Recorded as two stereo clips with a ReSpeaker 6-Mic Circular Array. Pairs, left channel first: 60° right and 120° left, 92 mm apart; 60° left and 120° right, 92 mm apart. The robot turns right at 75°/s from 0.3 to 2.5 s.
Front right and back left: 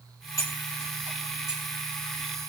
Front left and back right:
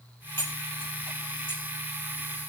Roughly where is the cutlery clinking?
Ahead.